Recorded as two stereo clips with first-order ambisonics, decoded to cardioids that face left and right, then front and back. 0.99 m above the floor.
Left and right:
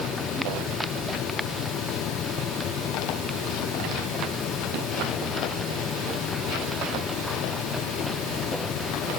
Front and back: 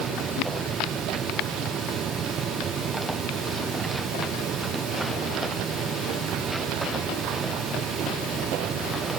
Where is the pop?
I don't hear a pop.